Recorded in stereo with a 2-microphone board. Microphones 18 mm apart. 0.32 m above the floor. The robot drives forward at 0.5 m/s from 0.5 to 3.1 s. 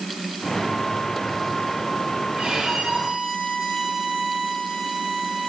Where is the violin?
85° right, 4.5 m; by 5.5 s 80° right, 4.5 m.